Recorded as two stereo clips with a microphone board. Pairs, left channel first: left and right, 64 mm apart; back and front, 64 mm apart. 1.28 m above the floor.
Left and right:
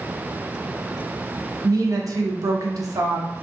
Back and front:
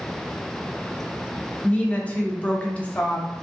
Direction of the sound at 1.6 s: 115° right.